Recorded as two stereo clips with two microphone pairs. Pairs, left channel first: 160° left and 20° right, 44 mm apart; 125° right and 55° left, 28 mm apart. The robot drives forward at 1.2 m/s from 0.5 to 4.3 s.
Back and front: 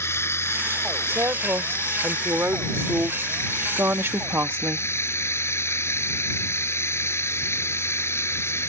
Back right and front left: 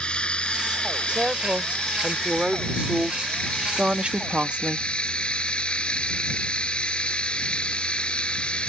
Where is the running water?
Straight behind.